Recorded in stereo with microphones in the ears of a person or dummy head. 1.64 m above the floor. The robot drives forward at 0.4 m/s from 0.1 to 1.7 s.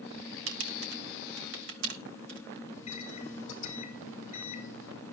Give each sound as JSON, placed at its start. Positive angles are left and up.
{"t": 0.5, "sound": "typing on a keyboard", "side_deg": -85, "distance_m": 1.9}
{"t": 2.7, "sound": "a microwave", "side_deg": 45, "distance_m": 3.0}